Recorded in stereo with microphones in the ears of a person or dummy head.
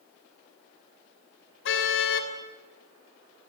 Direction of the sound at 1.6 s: 70° left (ahead or behind).